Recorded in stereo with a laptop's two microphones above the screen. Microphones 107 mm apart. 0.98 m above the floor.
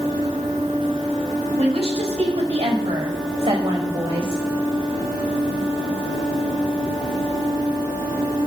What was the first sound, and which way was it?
A woman speaking, 75° right (ahead or behind).